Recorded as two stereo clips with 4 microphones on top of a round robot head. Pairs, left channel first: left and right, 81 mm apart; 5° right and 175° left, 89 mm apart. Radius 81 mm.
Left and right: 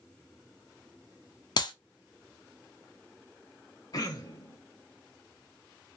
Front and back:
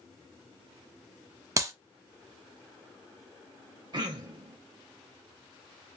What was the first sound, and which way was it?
A clap, 120° left.